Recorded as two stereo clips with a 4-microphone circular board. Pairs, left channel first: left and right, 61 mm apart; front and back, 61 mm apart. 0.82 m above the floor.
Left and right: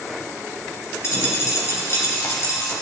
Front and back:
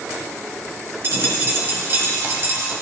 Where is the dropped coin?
130° left, 2 m.